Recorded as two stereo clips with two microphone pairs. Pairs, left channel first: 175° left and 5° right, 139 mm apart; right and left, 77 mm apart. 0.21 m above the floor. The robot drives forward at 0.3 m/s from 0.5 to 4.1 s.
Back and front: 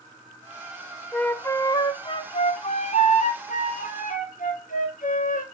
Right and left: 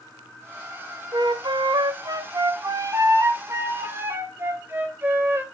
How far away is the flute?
About 0.5 m.